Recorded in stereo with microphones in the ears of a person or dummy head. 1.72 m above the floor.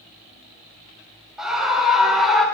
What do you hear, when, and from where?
1.4 s a scream: 5° right (ahead or behind), 9 m; by 2.5 s centre (ahead or behind), 8 m